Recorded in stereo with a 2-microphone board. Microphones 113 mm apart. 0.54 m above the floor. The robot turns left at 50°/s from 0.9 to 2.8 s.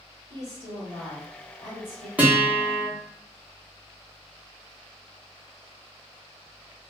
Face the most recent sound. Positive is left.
turn(degrees=170)